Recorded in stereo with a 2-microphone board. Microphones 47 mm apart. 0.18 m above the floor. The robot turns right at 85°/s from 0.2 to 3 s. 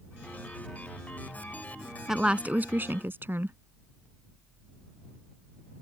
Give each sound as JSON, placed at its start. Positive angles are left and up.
{"t": 2.1, "sound": "a woman speaking", "azimuth_deg": -170}